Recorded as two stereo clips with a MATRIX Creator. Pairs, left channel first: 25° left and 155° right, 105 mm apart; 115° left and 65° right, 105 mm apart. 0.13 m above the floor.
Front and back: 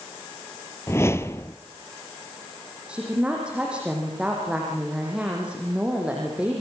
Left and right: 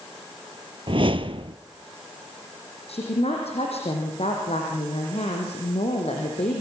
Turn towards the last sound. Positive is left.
turn(degrees=125)